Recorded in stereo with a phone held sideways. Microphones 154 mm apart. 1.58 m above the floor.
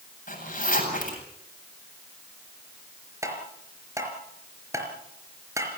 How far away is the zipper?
About 8 m.